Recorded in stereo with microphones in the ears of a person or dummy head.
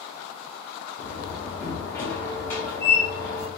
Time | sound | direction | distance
1.0 | a door slam | 10° left (ahead or behind) | 0.5 m